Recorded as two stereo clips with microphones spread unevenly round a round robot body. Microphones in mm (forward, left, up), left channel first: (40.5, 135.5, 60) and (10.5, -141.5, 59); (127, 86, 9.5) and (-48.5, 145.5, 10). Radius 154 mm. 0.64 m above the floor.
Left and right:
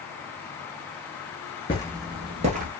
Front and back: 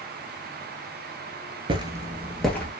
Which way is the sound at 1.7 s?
140° left.